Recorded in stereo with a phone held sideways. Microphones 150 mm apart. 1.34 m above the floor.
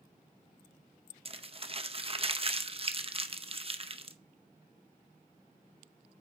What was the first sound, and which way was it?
Crumpling, 40° right (ahead or behind).